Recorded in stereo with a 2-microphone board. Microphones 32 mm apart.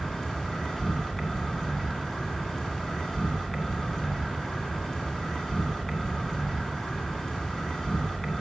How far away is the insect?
About 2 m.